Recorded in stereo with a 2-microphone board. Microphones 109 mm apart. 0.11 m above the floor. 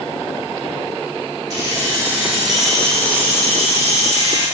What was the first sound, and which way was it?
Keys jangling, 35° right (ahead or behind).